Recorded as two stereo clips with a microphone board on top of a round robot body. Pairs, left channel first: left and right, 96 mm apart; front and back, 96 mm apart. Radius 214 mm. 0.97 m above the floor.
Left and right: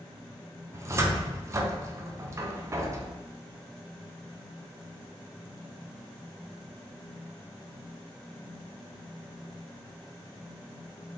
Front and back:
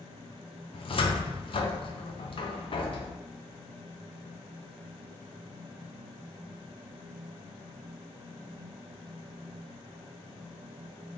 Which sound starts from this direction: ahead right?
A cupboard door, at 0.7 s.